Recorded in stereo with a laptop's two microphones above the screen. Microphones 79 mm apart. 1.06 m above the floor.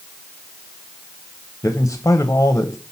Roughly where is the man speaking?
Left.